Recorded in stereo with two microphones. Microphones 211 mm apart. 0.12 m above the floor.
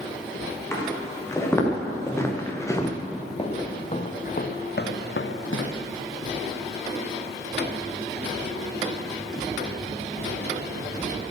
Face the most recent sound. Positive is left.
turn(degrees=85)